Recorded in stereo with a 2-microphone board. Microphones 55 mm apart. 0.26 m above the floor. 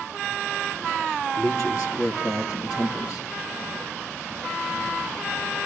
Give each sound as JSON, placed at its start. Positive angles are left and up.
{"t": 1.4, "sound": "a man speaking", "side_deg": 65, "distance_m": 4.5}